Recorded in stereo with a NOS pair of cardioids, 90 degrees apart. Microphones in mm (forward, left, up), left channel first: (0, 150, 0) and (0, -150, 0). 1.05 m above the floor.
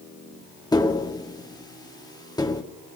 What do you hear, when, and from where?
0.7 s tapping: 10° left, 1.3 m